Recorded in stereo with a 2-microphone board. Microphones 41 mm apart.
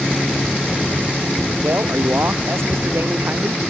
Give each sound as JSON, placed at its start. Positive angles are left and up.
{"t": 1.6, "sound": "a man speaking", "side_deg": -80}